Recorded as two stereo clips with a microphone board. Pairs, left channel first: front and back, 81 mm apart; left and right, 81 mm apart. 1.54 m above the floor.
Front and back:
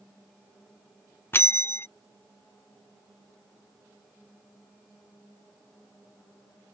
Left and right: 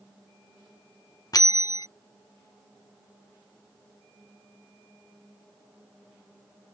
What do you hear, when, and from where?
1.3 s a bell: 60° left